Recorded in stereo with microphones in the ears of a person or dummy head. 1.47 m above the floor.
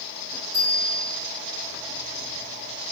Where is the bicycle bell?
20° right (ahead or behind), 8.5 m.